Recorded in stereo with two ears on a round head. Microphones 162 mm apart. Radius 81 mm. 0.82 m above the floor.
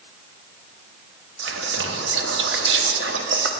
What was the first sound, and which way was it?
Whispering, 70° right (ahead or behind).